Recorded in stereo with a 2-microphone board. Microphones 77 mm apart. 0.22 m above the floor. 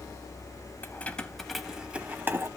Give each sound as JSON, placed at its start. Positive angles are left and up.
{"t": 0.8, "sound": "keys jangling", "side_deg": 25, "distance_m": 0.9}